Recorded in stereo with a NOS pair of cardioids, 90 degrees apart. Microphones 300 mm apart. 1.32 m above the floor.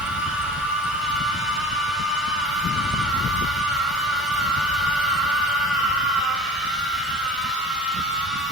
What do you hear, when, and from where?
0.0 s a machine running: straight ahead, 6 m